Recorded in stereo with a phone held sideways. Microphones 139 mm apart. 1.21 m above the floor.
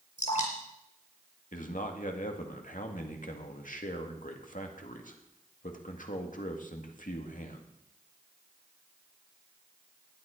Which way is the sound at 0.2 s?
60° left (ahead or behind).